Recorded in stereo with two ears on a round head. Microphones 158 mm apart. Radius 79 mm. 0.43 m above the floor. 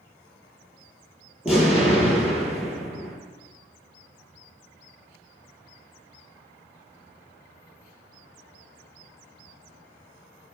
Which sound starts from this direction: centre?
An explosion, at 1.4 s.